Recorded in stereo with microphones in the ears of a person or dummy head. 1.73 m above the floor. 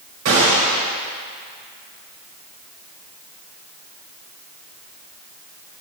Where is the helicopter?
No helicopter in this recording.